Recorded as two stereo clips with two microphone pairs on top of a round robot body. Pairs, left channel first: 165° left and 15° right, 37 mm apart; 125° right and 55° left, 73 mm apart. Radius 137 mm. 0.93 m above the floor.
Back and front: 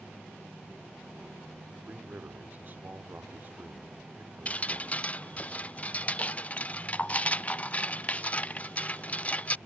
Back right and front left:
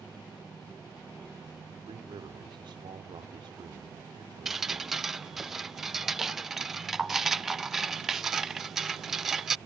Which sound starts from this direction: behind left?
Dripping, at 4.5 s.